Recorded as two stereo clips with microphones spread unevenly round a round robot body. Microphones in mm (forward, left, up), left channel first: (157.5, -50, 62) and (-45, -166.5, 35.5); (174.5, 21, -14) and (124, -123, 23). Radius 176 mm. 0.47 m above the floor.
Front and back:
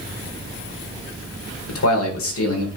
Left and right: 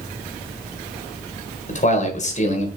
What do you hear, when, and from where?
1.7 s a man speaking: 55° left, 1.7 m